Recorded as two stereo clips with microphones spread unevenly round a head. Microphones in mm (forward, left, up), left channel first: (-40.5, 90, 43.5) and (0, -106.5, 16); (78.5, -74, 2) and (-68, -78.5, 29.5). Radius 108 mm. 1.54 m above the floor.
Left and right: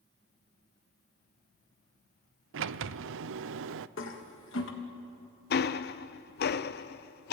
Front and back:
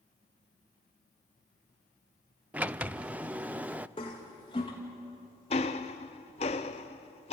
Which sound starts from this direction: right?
A sliding door, at 2.5 s.